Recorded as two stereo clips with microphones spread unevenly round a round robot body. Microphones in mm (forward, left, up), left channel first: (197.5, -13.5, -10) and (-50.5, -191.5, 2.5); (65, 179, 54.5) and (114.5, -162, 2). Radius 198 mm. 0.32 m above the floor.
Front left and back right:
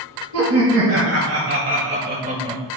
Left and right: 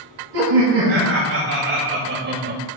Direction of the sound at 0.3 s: 125° right.